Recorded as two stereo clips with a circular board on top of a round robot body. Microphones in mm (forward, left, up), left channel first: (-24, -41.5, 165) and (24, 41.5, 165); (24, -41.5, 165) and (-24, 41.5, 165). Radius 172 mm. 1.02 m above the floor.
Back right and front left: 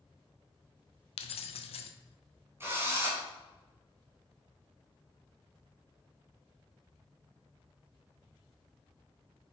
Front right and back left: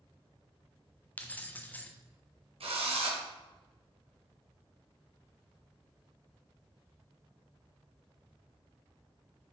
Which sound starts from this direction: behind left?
A drill, at 2.6 s.